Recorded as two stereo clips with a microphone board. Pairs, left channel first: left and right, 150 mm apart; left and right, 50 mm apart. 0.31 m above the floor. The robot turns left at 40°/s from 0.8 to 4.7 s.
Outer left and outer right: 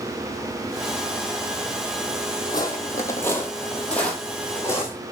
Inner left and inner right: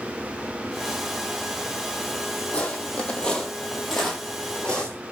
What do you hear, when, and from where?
2.5 s footsteps: 25° left (ahead or behind), 0.7 m; by 5.0 s 15° left (ahead or behind), 1.1 m